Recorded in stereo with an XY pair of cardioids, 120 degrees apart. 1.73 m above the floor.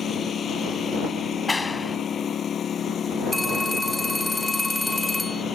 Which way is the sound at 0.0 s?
40° left.